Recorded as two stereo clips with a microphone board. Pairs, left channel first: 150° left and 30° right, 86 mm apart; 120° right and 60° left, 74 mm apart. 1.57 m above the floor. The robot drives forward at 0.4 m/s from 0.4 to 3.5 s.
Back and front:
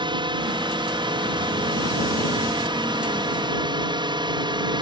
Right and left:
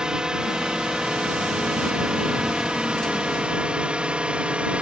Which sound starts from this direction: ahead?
A drone, at 0.0 s.